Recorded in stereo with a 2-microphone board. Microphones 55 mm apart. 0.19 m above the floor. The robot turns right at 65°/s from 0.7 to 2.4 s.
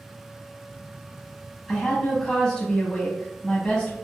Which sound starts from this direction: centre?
A woman speaking, at 1.7 s.